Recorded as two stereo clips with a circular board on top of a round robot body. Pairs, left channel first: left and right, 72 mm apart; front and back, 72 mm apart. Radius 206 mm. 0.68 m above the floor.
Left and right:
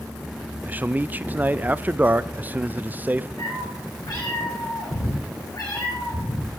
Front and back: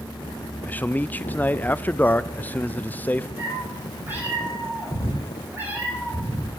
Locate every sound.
0.7 s a man speaking: 45° right, 0.5 m
3.4 s a cat meowing: 115° left, 5 m